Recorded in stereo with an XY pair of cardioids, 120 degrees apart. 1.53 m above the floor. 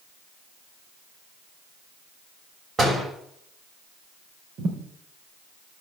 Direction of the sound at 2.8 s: 30° right.